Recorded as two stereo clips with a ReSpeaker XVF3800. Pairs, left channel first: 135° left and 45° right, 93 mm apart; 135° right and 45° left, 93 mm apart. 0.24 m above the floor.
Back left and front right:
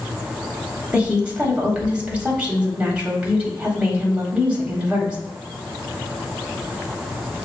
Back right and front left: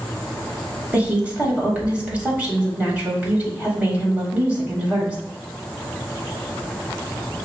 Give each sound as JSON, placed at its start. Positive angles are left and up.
{"t": 0.9, "sound": "a woman speaking", "azimuth_deg": 5, "distance_m": 1.0}